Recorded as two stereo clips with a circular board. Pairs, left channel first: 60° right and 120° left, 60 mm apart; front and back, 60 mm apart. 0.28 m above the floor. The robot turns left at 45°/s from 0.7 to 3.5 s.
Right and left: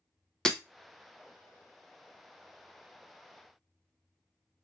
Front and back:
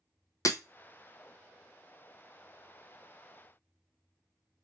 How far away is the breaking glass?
About 0.6 m.